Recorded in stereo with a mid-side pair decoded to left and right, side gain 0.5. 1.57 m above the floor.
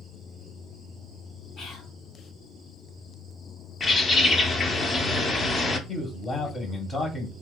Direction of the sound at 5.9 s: 30° left.